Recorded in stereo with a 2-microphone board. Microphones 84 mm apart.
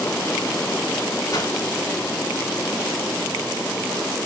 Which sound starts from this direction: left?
A whoosh, at 1.3 s.